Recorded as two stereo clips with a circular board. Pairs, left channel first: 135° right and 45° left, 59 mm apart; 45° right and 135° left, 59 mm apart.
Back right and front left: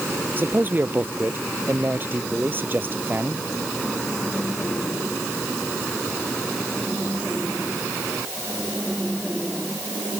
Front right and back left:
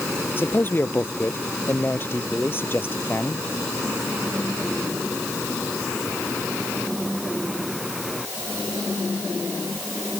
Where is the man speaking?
5° right.